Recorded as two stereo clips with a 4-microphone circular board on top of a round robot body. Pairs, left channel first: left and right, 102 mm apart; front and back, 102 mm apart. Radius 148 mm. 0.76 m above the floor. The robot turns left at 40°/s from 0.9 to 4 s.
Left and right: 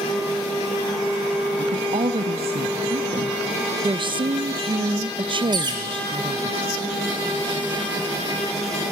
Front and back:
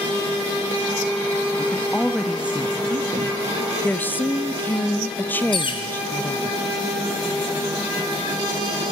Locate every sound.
1.6 s a woman speaking: 65° right, 1.2 m; by 3.4 s 140° right, 1.2 m
3.8 s a woman speaking: 65° right, 0.6 m; by 6.5 s 70° right, 0.6 m
5.5 s a bird: 40° right, 0.7 m